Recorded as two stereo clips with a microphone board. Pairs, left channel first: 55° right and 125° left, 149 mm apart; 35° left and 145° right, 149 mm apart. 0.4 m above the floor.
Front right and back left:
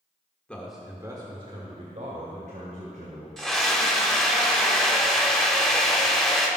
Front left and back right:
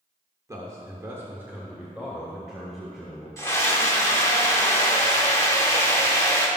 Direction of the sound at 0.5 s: 120° right.